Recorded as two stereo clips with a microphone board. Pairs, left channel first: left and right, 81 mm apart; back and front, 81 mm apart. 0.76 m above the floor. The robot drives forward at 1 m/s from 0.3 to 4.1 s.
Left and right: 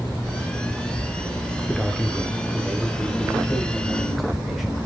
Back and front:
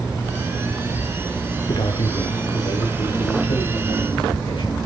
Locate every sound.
1.7 s a man speaking: straight behind, 2 m